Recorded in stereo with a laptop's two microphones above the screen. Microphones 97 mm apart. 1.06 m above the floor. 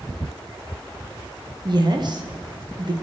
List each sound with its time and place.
1.6 s a woman speaking: 50° right (ahead or behind), 1.1 m